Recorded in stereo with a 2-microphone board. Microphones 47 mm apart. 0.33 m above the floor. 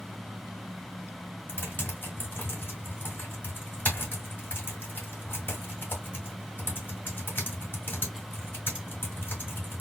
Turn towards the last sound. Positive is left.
turn(degrees=45)  # may be behind; listen again after turning